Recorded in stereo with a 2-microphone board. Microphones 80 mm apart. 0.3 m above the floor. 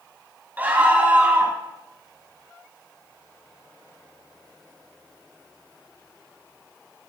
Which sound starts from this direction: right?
A scream, at 0.6 s.